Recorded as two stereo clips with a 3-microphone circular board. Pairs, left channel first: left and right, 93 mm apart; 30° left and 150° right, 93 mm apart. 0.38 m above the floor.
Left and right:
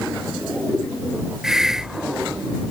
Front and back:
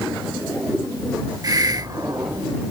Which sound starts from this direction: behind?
A hiss, at 1.4 s.